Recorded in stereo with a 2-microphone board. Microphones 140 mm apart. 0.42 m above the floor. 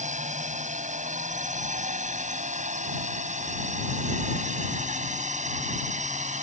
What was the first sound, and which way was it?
A drone, 60° right (ahead or behind).